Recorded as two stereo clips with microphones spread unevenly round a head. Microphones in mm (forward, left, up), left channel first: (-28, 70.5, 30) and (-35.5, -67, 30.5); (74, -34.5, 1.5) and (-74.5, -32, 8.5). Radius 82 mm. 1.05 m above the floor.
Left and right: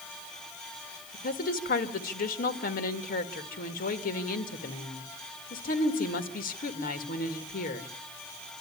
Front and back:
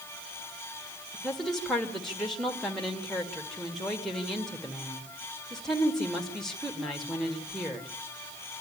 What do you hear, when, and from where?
1.1 s a woman speaking: 85° left, 1.8 m